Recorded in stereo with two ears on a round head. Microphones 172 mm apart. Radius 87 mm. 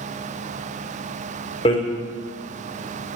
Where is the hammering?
30° left (ahead or behind), 3.5 m.